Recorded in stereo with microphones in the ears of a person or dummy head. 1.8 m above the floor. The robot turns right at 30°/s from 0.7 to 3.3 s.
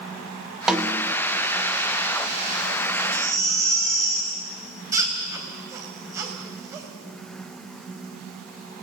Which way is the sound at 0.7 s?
Centre (ahead or behind).